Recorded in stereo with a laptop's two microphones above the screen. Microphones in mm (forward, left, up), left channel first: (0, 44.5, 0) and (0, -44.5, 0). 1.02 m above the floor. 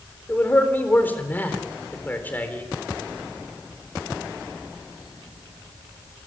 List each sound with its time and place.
0.3 s a man speaking: 20° left (ahead or behind), 3.5 m